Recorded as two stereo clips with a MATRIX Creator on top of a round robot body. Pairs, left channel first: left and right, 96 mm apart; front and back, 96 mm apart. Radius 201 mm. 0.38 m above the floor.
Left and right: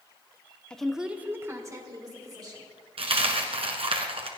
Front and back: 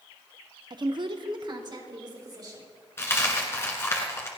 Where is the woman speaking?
170° left, 1.2 m; by 2.6 s 135° right, 3.5 m.